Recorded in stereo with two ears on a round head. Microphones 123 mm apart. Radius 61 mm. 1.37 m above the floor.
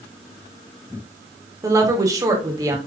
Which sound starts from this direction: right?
A woman speaking, at 1.6 s.